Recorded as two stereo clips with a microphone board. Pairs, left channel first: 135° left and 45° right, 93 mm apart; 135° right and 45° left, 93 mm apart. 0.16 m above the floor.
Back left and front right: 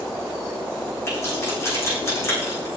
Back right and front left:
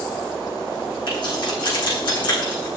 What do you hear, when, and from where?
1.1 s keys jangling: 165° right, 7 m